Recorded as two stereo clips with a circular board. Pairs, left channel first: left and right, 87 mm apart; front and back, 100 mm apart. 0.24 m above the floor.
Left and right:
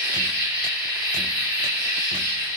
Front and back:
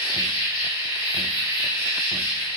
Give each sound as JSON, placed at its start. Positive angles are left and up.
{"t": 0.0, "sound": "an insect", "azimuth_deg": -155, "distance_m": 1.9}